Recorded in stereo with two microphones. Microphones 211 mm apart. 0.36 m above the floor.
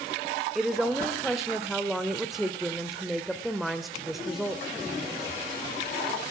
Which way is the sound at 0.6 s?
Centre (ahead or behind).